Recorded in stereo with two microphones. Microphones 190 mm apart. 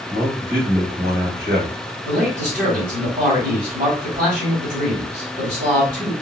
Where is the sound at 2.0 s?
45° right (ahead or behind), 3 m.